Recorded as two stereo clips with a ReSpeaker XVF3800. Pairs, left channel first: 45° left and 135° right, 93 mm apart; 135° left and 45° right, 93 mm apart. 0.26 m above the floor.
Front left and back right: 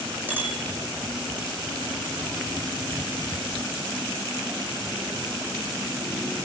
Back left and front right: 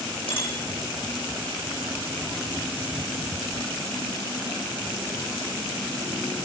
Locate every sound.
0.3 s a bicycle bell: 160° left, 8.5 m